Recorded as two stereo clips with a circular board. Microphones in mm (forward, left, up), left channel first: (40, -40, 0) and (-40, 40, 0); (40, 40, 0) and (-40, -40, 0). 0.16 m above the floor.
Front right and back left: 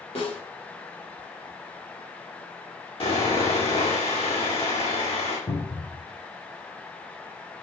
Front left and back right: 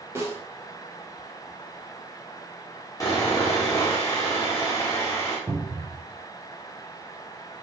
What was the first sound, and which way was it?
A snare drum, 65° right.